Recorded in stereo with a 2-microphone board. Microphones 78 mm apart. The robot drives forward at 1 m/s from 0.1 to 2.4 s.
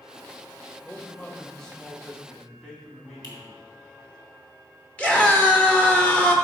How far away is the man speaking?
About 1.0 m.